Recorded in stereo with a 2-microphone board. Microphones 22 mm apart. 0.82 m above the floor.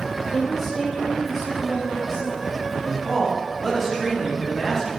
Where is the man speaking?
5° left (ahead or behind), 1.6 m.